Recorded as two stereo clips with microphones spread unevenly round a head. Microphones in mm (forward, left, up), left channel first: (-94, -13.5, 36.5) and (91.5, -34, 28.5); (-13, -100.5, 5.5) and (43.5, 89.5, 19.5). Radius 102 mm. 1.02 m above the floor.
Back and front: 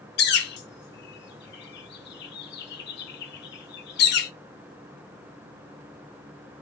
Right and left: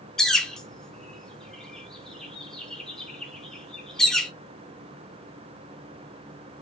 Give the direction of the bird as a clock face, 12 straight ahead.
7 o'clock.